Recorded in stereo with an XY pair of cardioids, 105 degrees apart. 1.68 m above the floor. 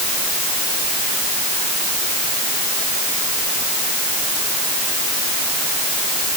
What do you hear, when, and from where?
Only background noise.